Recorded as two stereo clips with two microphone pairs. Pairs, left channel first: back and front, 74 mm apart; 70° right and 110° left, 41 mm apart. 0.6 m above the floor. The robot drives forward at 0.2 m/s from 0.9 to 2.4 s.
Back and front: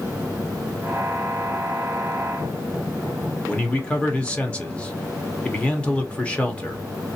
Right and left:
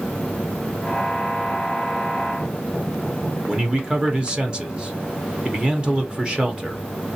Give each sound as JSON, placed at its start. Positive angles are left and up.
{"t": 3.5, "sound": "a man speaking", "azimuth_deg": 130, "distance_m": 0.7}